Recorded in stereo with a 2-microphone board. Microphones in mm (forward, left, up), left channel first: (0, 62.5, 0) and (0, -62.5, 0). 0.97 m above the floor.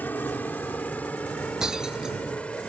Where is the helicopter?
15° left (ahead or behind); by 2.7 s 10° left (ahead or behind).